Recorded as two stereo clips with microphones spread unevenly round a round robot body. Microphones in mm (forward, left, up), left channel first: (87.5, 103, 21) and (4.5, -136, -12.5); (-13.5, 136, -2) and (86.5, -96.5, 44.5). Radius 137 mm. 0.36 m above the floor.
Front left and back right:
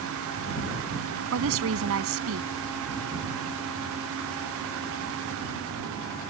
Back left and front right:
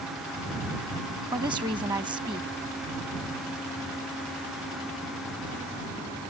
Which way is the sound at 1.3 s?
145° right.